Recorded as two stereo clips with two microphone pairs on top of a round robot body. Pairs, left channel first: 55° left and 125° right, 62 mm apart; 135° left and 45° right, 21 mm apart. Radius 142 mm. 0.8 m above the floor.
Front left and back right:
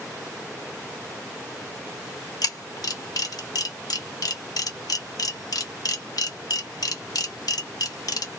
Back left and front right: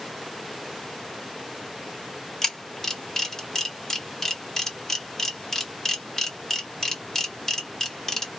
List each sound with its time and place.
2.4 s a camera shutter: 70° left, 1.4 m